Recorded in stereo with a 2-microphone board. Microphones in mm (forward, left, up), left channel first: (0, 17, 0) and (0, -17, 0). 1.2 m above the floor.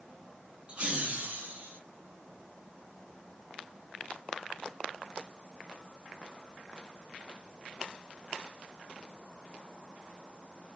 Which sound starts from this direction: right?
Laughter, at 0.7 s.